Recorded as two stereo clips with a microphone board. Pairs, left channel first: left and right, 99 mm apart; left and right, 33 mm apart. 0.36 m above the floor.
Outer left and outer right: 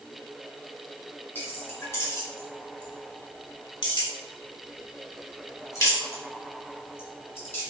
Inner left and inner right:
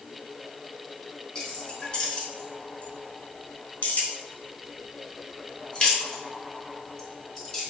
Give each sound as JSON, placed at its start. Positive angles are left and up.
{"t": 1.4, "sound": "keys jangling", "side_deg": 20, "distance_m": 1.6}